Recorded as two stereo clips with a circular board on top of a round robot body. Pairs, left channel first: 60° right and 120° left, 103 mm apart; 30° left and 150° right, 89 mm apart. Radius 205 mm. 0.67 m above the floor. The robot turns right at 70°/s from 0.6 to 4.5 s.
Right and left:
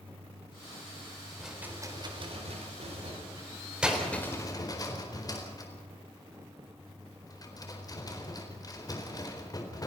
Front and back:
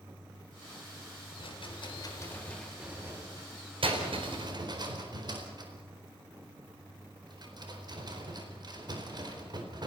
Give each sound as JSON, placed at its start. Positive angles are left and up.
{"t": 1.4, "sound": "a rattle", "azimuth_deg": 30, "distance_m": 4.5}